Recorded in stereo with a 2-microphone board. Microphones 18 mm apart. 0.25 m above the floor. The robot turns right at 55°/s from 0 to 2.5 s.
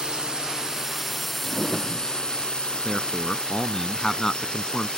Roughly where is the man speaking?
Left.